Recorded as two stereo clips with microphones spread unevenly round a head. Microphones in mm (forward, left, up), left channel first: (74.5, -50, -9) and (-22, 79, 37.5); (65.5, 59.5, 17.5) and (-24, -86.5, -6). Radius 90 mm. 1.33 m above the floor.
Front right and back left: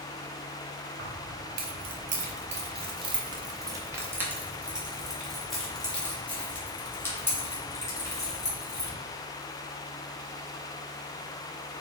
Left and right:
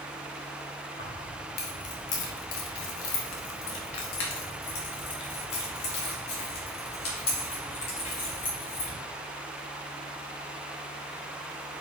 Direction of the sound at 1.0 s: 110° left.